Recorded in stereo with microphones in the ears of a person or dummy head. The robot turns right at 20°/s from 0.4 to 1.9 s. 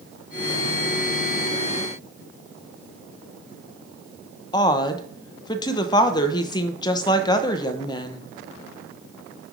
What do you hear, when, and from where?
4.5 s a woman speaking: 25° left (ahead or behind), 0.7 m